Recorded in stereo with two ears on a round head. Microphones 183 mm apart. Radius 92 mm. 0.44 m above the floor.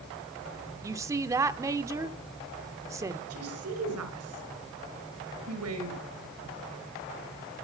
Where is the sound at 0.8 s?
15° right (ahead or behind), 0.8 m.